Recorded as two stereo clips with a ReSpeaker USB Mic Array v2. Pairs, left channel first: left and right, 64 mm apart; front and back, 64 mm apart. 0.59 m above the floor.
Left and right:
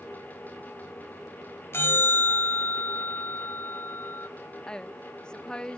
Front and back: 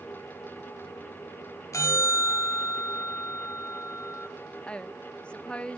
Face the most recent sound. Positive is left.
turn(degrees=35)